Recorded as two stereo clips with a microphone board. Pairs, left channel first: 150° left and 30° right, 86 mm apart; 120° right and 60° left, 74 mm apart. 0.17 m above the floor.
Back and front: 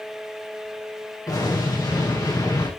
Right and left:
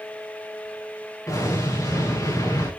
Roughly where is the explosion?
Behind.